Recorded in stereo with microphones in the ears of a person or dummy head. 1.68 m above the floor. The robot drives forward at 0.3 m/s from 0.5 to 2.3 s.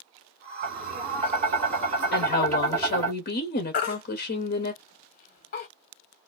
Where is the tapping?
40° right (ahead or behind), 1.5 m; by 3.1 s 30° right (ahead or behind), 1.8 m.